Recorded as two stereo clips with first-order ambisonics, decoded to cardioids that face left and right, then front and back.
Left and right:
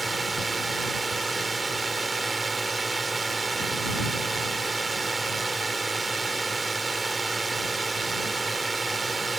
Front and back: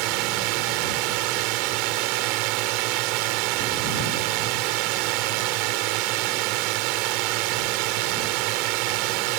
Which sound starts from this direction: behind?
A drone, at 0.0 s.